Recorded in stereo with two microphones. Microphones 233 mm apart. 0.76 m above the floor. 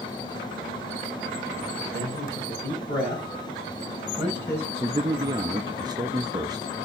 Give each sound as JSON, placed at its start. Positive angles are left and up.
{"t": 1.9, "sound": "a man speaking", "side_deg": 50, "distance_m": 5.5}
{"t": 4.8, "sound": "a man speaking", "side_deg": -20, "distance_m": 0.5}